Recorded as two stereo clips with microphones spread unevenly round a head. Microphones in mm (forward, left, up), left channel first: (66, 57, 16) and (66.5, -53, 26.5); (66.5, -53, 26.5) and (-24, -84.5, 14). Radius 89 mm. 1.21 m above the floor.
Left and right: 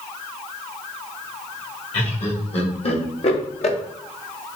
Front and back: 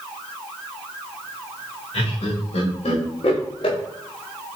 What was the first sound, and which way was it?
Laughter, 65° left.